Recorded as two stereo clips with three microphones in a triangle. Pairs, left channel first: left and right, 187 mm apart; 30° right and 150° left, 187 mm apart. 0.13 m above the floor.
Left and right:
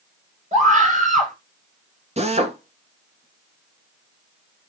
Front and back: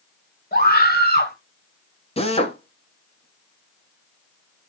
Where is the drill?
65° right, 1.6 m.